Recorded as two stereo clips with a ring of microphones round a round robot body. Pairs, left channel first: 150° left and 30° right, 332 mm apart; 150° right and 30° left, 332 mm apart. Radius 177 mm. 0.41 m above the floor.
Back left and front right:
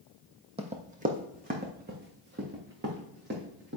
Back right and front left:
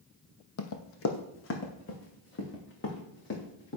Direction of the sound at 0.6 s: 105° right.